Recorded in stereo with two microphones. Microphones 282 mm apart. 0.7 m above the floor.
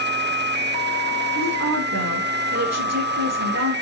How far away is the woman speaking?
About 7.5 m.